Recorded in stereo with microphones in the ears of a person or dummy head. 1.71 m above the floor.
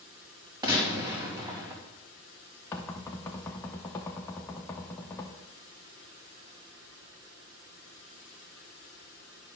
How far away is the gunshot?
About 1.7 m.